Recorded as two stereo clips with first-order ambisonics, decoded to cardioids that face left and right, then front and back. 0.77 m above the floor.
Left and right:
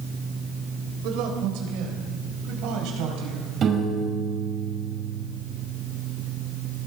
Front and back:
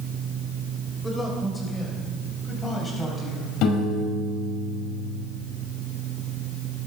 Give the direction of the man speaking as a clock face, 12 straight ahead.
3 o'clock.